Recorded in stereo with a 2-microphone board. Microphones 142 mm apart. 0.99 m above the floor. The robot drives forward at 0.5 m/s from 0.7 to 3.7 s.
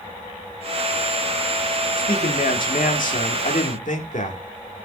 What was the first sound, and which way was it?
A man speaking, 85° left.